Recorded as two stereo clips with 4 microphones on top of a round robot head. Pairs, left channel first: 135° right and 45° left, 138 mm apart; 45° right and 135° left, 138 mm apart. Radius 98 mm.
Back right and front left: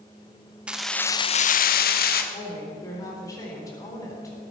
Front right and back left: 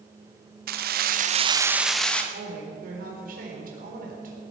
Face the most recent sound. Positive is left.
turn(degrees=160)